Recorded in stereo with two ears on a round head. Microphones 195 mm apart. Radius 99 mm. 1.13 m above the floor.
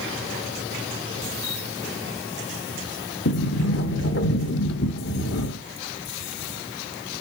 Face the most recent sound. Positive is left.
turn(degrees=55)  # may be behind; listen again after turning